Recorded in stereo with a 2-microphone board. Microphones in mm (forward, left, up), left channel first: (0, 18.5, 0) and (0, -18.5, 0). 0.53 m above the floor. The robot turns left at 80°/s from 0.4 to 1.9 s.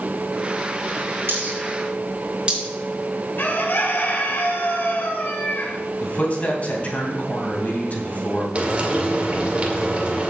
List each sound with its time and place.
1.3 s a dropped coin: 75° right (ahead or behind), 4 m; by 2.6 s 30° right (ahead or behind), 4 m
3.4 s a bird: 65° left (ahead or behind), 1.7 m
6.0 s a man speaking: 45° left (ahead or behind), 3 m
8.6 s frying: 35° right (ahead or behind), 2 m